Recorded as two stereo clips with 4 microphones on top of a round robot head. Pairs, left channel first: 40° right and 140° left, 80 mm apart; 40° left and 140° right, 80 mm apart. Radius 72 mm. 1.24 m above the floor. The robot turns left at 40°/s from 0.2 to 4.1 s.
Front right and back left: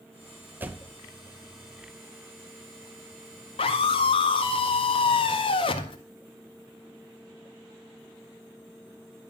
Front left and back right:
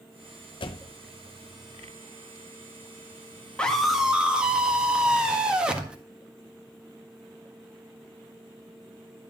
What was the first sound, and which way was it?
A door slam, 70° left.